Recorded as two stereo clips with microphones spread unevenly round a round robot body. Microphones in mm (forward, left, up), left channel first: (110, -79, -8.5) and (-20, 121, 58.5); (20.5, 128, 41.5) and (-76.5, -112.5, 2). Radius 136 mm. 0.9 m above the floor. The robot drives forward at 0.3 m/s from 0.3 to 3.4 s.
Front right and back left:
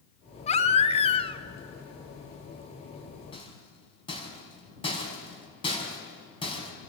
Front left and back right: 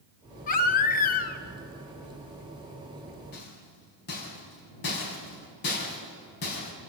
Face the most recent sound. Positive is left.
turn(degrees=15)